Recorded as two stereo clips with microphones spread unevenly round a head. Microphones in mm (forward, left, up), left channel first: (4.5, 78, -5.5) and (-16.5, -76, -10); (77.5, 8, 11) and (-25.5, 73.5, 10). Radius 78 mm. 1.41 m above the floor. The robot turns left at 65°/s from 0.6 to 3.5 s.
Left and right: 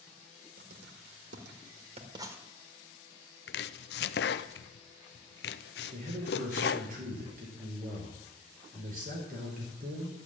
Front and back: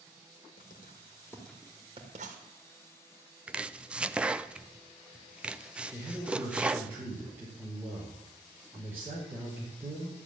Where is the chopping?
70° left, 0.6 m; by 6.9 s 65° left, 0.6 m.